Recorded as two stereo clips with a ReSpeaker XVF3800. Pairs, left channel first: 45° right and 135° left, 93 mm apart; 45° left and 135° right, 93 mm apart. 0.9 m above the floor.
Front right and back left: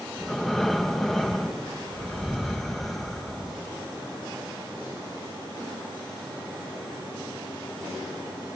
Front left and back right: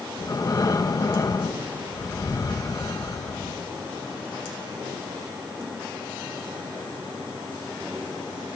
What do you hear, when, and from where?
0.2 s breathing: 40° left, 0.9 m